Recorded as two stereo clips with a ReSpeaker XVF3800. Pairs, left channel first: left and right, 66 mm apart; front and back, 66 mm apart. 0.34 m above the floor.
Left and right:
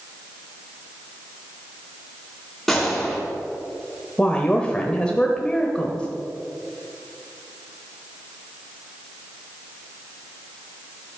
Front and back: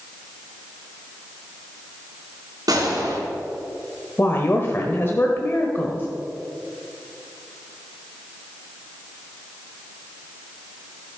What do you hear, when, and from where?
2.7 s a gunshot: 170° left, 3 m
4.2 s a woman speaking: 25° left, 1.0 m